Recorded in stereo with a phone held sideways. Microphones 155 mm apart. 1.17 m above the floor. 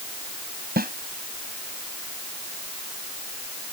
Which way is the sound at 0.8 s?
80° right.